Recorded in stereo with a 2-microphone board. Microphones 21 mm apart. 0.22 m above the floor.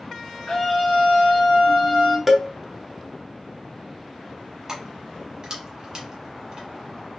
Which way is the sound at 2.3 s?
10° right (ahead or behind).